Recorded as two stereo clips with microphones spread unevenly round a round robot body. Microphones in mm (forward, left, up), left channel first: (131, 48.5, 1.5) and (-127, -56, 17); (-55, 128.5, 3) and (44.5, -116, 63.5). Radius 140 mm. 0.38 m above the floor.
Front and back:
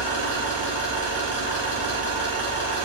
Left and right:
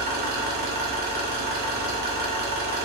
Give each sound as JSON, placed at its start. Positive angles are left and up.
{"t": 0.0, "sound": "an engine running", "azimuth_deg": -10, "distance_m": 0.7}